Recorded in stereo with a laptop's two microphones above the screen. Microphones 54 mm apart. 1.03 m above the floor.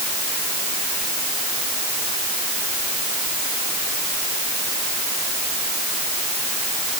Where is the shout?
No shout in this recording.